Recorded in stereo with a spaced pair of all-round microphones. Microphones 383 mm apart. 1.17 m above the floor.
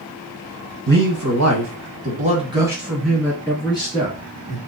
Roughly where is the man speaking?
Right.